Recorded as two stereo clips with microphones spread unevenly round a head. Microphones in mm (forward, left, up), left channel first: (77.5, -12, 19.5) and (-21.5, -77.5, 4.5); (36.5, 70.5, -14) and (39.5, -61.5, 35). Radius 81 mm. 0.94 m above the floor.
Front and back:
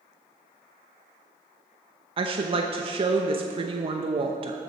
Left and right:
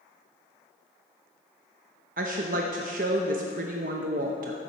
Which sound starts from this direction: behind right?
A woman speaking, at 2.2 s.